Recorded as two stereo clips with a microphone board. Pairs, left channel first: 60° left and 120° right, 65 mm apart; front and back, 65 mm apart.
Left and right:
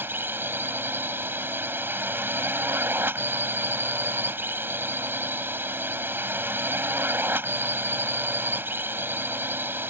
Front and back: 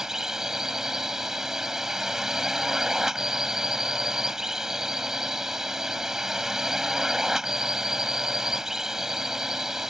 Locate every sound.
0.0 s a drone: 100° right